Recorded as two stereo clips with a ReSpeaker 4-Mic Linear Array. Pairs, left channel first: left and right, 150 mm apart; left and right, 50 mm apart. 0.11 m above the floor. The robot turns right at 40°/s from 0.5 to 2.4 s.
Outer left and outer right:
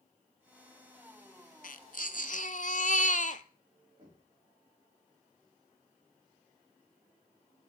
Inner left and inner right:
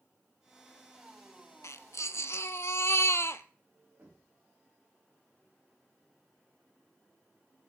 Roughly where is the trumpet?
No trumpet in this recording.